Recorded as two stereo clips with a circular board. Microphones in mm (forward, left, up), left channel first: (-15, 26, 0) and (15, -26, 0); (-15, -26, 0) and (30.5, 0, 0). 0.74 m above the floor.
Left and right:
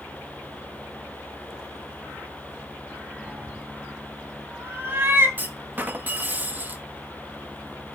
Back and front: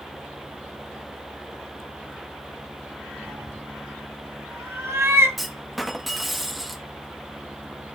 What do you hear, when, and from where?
3.3 s a cat meowing: 5° left, 1.4 m; by 5.3 s 10° right, 3.5 m
5.4 s a clunk: 60° right, 1.1 m